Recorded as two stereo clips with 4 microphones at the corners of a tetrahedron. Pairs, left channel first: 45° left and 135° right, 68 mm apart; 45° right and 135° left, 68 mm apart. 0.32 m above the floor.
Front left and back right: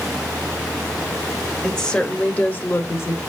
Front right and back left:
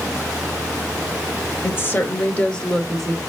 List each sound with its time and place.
1.6 s a woman speaking: 35° right, 1.0 m; by 3.2 s 50° left, 1.1 m